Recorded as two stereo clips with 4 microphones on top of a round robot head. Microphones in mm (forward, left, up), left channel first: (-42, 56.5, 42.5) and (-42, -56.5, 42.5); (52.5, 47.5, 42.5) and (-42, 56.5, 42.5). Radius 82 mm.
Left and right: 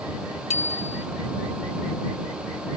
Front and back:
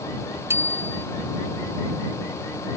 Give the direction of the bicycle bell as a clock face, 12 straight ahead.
8 o'clock.